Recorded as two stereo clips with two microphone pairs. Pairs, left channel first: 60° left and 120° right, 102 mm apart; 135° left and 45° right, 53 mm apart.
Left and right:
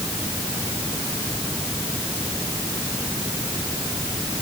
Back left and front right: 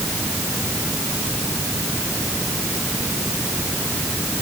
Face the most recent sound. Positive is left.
No sound to turn to.